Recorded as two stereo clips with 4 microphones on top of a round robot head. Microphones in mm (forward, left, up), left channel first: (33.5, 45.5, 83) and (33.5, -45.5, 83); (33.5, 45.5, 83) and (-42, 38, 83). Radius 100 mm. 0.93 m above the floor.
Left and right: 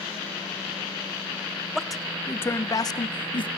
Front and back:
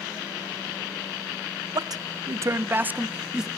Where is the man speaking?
175° right, 0.9 m; by 3.5 s 100° left, 1.2 m.